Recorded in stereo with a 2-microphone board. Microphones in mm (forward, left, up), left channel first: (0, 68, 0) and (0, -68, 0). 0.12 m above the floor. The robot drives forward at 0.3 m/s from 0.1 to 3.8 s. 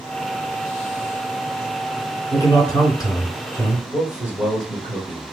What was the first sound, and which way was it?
A man speaking, 30° left (ahead or behind).